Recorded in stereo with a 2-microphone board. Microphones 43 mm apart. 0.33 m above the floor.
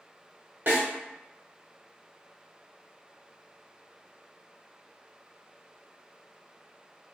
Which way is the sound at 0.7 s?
50° right (ahead or behind).